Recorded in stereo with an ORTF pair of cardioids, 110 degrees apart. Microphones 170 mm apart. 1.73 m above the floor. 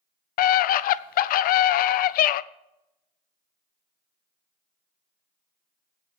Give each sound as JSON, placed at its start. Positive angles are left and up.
{"t": 0.4, "sound": "a scream", "azimuth_deg": 65, "distance_m": 0.6}